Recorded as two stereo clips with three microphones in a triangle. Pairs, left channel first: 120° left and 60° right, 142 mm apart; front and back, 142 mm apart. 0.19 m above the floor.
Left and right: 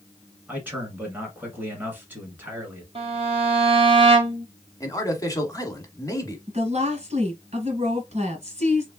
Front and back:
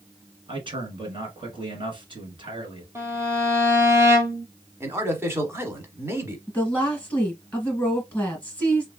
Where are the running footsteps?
No running footsteps in this recording.